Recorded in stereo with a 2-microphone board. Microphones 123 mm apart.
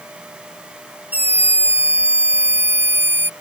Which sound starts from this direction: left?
A scream, at 1.1 s.